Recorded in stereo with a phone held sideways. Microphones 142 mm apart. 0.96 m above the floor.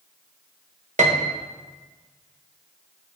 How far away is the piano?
About 1.1 m.